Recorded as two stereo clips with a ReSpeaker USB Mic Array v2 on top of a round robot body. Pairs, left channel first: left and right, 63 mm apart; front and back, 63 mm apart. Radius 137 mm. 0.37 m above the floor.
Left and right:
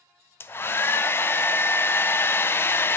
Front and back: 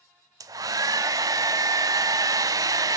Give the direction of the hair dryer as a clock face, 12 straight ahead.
7 o'clock.